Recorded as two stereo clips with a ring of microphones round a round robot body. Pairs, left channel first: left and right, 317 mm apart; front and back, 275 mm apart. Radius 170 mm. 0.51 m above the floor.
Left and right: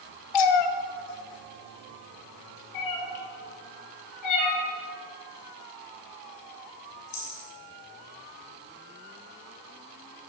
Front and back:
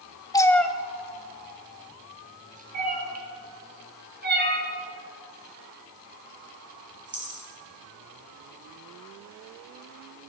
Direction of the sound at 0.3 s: 80° left.